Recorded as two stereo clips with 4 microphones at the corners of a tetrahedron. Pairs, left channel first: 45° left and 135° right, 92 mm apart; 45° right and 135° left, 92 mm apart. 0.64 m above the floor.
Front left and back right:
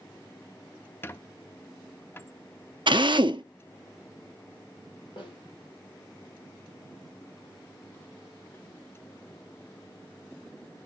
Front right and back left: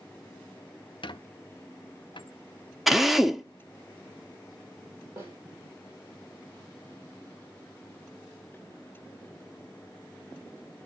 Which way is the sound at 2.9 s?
140° right.